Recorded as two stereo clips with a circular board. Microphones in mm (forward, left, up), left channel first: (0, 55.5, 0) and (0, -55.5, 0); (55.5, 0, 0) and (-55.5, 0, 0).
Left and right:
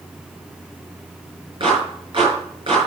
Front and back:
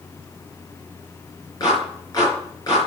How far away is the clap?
About 4.5 m.